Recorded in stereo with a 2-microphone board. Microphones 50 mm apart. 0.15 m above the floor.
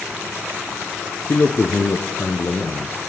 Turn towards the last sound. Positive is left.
turn(degrees=40)  # may be behind; listen again after turning